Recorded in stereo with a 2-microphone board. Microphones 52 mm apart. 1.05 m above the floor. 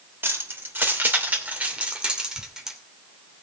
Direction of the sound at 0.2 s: 50° right (ahead or behind).